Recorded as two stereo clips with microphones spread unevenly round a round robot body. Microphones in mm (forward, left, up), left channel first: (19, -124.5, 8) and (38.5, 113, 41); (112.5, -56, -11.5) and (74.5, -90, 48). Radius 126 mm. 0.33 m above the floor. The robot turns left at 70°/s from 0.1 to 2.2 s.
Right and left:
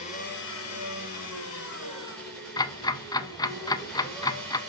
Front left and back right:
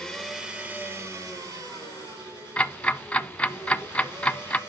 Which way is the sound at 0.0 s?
35° right.